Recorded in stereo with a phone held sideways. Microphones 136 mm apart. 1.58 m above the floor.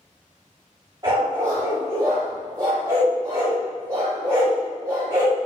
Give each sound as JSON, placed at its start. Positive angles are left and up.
{"t": 1.0, "sound": "a dog barking", "side_deg": -30, "distance_m": 1.7}